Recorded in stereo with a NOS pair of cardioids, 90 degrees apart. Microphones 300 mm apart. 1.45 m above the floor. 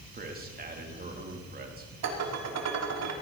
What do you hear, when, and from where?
0.1 s a man speaking: 30° right, 3 m
2.0 s dishes clattering: 60° right, 2.5 m